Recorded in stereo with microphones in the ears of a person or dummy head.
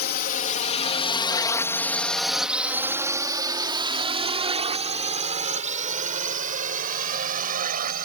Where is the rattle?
No rattle in this recording.